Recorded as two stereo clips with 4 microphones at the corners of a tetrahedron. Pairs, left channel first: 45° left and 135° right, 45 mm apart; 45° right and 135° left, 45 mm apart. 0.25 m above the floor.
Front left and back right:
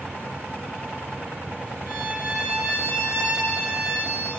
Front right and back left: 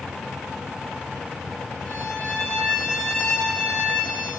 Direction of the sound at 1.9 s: 120° right.